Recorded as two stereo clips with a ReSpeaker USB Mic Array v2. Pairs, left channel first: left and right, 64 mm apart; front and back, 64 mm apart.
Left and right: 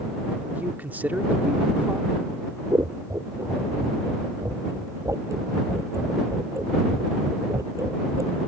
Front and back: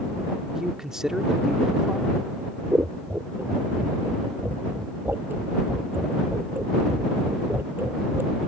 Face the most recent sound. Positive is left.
turn(degrees=-120)